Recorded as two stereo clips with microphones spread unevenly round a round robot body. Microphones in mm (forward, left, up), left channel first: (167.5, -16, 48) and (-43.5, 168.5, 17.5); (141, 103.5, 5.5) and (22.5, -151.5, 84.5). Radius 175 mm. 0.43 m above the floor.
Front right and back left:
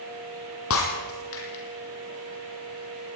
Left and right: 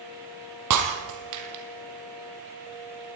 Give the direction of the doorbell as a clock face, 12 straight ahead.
No doorbell in this recording.